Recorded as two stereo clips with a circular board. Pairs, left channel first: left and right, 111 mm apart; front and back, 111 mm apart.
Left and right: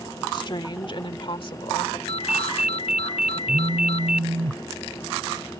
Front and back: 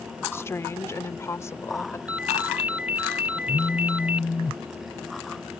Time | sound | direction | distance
0.3 | a woman speaking | 60° left | ?
2.1 | a ringtone | 105° left | ?
3.5 | a phone buzzing | 70° right | ?